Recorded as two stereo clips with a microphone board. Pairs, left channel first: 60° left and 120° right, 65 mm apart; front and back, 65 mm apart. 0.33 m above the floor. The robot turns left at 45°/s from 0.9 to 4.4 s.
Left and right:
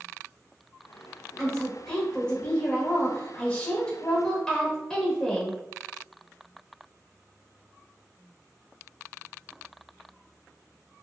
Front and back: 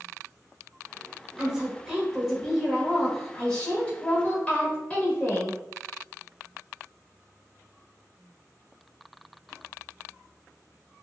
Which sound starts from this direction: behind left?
A woman speaking, at 1.4 s.